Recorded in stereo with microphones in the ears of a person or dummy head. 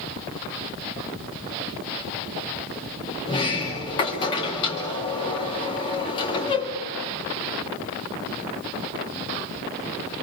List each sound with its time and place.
3.2 s a sliding door: 25° left (ahead or behind), 2.5 m